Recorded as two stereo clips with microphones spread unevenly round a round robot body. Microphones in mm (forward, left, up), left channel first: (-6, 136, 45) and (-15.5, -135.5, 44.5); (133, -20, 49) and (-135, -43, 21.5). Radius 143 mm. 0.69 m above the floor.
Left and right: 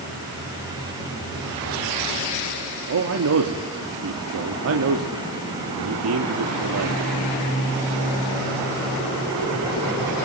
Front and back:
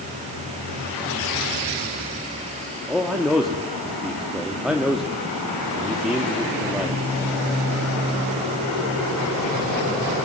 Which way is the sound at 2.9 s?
90° right.